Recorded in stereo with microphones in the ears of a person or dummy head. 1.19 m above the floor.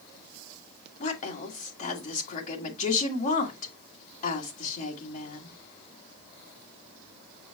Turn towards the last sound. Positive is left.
turn(degrees=40)  # may be behind; listen again after turning